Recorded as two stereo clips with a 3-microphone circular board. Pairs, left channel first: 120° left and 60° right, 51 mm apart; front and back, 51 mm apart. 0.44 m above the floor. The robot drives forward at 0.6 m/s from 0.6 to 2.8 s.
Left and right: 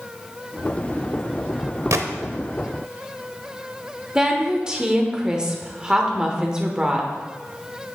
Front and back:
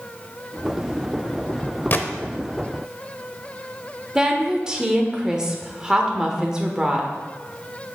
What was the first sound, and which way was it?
A gunshot, 50° right.